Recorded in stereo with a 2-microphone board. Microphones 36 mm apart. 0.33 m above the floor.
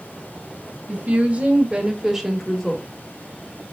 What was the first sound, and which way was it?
A woman speaking, 50° right (ahead or behind).